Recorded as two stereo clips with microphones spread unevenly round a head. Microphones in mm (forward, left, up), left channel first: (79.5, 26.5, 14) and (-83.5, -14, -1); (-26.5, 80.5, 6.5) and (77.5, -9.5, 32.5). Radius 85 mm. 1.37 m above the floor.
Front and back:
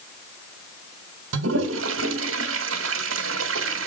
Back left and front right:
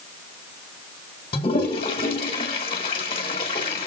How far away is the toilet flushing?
About 1.4 m.